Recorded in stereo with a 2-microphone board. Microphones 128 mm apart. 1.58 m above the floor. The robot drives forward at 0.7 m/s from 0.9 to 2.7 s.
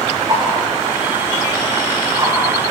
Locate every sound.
0.3 s a whoosh: 40° right (ahead or behind), 5 m; by 2.3 s 35° right (ahead or behind), 5.5 m